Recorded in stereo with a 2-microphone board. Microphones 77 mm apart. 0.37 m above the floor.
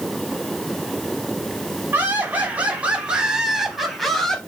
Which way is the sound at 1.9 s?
25° right (ahead or behind).